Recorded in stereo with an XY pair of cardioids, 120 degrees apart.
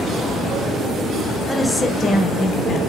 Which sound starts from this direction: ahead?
A woman speaking, at 1.5 s.